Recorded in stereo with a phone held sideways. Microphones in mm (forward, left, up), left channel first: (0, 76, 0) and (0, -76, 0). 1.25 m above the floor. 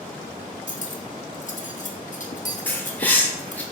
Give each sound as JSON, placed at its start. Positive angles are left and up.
{"t": 0.7, "sound": "cutlery clinking", "side_deg": 55, "distance_m": 0.8}
{"t": 2.7, "sound": "a bird", "side_deg": 10, "distance_m": 1.1}